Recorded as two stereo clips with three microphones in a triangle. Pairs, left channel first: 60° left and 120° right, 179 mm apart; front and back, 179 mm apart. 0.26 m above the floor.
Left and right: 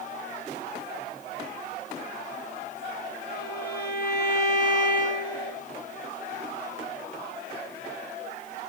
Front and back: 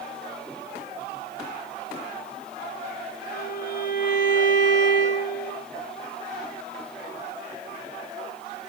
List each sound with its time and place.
3.3 s a violin: 30° left, 4.5 m